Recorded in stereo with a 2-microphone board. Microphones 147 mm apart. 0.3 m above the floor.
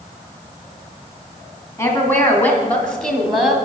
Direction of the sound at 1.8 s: 20° left (ahead or behind).